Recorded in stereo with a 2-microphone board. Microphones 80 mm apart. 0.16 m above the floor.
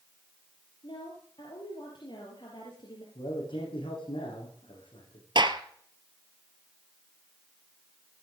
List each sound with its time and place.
0.8 s a woman speaking: 65° left (ahead or behind), 4 m
3.1 s a man speaking: 80° left, 7.5 m
5.3 s a gunshot: 65° right (ahead or behind), 1.3 m